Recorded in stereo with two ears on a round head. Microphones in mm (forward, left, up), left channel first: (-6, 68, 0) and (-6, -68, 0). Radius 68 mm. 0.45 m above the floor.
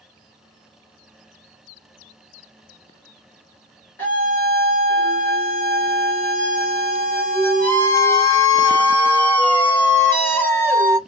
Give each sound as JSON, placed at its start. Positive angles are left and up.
{"t": 4.0, "sound": "a scream", "side_deg": 15, "distance_m": 1.1}